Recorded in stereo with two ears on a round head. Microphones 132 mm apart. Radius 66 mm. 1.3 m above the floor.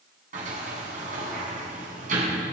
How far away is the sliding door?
About 7.5 m.